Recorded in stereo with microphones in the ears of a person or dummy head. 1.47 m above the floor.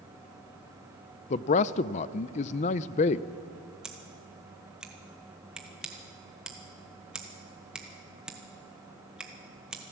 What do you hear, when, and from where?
1.3 s a man speaking: 35° left (ahead or behind), 0.5 m
3.8 s scissors: 5° right (ahead or behind), 1.3 m